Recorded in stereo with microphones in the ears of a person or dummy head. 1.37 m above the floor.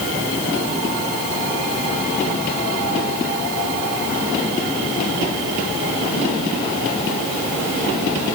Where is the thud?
No thud in this recording.